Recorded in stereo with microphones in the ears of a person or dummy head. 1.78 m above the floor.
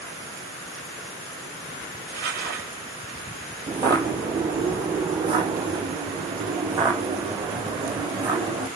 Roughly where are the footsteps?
Centre.